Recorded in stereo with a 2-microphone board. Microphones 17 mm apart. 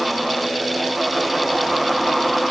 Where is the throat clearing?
No throat clearing in this recording.